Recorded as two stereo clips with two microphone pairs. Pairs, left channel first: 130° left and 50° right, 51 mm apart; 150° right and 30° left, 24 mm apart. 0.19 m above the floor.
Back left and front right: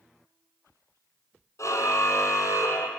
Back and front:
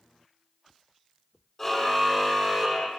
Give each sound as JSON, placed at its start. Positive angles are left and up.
{"t": 1.6, "sound": "a car horn", "azimuth_deg": 130, "distance_m": 4.0}